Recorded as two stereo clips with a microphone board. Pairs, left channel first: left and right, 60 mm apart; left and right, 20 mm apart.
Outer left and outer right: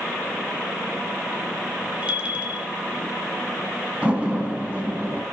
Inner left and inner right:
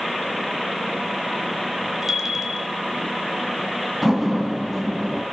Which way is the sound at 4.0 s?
20° right (ahead or behind).